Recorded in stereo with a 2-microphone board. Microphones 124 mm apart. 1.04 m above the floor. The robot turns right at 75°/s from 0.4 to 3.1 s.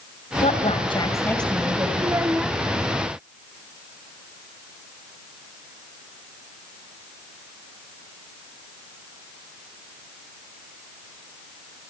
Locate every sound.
0.4 s a woman speaking: 100° left, 6 m; by 1.9 s 150° right, 6 m
2.0 s a child speaking: 40° right, 0.6 m; by 2.6 s 5° left, 0.6 m